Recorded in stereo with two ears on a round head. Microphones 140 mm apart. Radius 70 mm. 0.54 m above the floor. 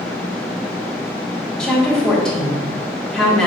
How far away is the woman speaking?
About 1.3 m.